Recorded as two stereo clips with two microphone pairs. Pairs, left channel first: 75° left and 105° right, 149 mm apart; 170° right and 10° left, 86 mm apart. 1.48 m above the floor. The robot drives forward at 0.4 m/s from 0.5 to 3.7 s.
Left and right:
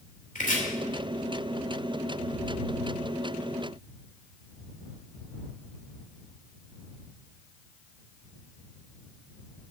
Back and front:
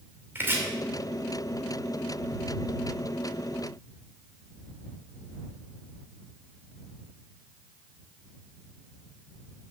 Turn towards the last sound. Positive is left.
turn(degrees=100)